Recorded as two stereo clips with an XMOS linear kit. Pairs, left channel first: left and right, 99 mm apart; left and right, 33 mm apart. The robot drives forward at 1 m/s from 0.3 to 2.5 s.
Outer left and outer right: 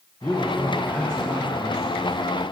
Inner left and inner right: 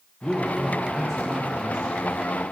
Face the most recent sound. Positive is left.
turn(degrees=5)  # may be behind; listen again after turning